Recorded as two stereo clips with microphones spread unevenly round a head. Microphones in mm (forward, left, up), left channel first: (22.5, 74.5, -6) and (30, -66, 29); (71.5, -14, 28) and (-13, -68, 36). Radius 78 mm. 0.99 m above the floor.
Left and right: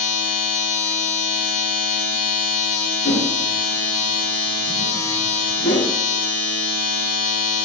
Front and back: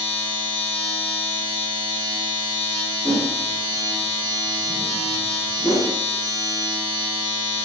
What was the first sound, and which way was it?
A machine running, 90° left.